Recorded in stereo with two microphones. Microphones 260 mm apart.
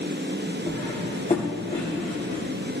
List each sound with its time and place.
0.7 s cutlery clinking: 25° left (ahead or behind), 6.5 m